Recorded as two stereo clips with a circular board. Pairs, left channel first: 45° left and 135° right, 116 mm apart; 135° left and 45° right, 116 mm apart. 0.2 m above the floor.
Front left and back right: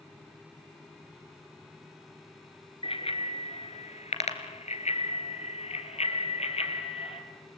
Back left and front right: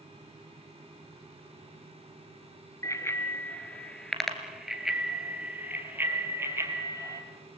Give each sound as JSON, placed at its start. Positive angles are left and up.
{"t": 2.8, "sound": "a bicycle bell", "azimuth_deg": 75, "distance_m": 2.0}